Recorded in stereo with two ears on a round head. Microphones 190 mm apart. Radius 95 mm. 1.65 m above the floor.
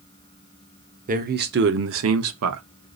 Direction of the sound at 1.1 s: 40° right (ahead or behind).